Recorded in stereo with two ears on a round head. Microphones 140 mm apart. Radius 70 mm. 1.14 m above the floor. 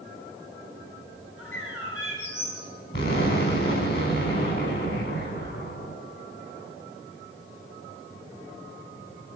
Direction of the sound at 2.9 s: 70° left (ahead or behind).